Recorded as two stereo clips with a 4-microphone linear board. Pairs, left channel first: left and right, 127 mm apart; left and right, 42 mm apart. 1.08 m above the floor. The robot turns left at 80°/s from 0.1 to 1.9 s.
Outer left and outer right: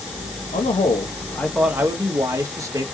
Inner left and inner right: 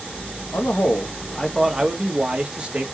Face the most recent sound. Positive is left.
turn(degrees=-25)